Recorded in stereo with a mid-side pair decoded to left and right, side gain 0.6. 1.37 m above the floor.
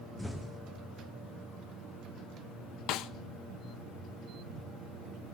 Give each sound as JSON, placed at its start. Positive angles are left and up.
{"t": 0.2, "sound": "an explosion", "azimuth_deg": 5, "distance_m": 2.0}
{"t": 2.9, "sound": "a snare drum", "azimuth_deg": 65, "distance_m": 1.0}